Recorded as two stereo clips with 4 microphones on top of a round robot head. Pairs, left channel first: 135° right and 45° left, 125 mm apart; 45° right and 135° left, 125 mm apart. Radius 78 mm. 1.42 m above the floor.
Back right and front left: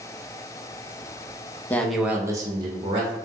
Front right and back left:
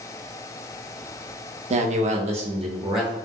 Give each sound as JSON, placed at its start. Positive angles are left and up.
{"t": 1.7, "sound": "a man speaking", "azimuth_deg": 150, "distance_m": 0.6}